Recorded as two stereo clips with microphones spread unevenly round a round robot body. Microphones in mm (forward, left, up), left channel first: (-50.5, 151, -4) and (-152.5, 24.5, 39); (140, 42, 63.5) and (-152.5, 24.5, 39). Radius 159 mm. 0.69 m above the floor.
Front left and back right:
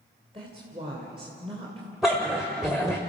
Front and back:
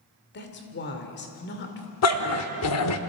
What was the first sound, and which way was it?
A woman speaking, 55° right.